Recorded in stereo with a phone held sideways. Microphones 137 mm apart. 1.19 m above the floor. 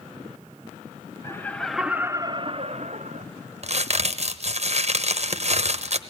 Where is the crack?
50° right (ahead or behind), 0.9 m.